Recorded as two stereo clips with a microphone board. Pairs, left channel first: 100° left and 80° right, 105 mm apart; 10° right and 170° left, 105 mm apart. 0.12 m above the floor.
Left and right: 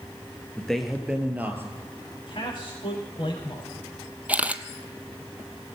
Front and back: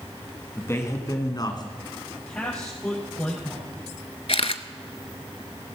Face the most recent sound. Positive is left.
turn(degrees=-5)